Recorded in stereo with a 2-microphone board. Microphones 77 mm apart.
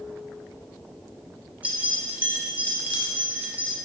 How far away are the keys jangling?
About 0.7 m.